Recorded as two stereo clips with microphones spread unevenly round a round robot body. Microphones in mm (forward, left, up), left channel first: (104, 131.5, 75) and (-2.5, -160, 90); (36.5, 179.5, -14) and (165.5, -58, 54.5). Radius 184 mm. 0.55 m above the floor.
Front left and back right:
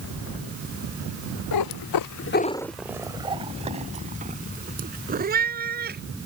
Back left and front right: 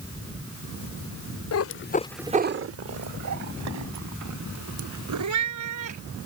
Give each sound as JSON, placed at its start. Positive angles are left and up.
{"t": 1.5, "sound": "a cat meowing", "azimuth_deg": 90}